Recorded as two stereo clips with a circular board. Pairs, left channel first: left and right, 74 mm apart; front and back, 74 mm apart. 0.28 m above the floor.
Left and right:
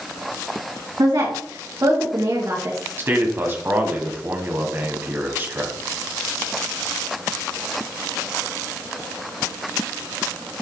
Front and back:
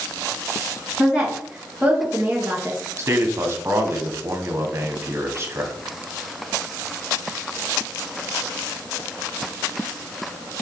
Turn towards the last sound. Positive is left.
turn(degrees=-140)